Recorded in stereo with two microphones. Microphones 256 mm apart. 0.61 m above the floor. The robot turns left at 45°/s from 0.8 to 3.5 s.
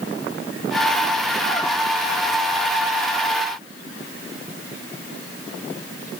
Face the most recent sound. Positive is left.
No sound to turn to.